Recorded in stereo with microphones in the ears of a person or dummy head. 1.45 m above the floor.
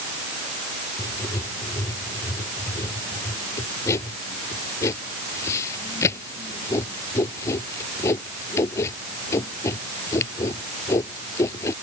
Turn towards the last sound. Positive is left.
turn(degrees=15)  # may be behind; listen again after turning